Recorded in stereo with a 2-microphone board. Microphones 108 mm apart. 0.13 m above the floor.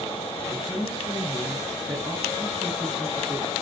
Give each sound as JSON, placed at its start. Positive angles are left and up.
{"t": 0.5, "sound": "a woman speaking", "side_deg": -15, "distance_m": 1.5}